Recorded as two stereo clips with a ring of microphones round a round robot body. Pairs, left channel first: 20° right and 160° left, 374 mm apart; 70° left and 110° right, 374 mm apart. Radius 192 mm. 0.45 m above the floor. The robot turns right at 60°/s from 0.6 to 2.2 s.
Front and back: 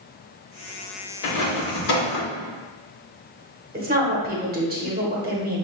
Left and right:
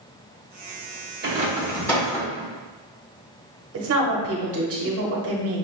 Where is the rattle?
55° right, 1.0 m; by 2.5 s 5° left, 1.0 m.